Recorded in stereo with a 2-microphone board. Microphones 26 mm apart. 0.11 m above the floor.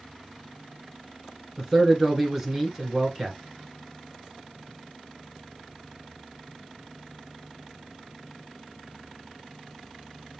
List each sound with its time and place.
1.6 s a man speaking: 10° right (ahead or behind), 1.1 m